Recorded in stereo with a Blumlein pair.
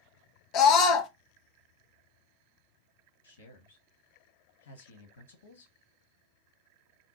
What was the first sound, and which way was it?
A scream, 35° left.